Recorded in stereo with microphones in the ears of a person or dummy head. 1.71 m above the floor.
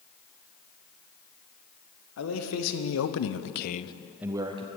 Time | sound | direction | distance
2.2 | a man speaking | 80° left | 1.6 m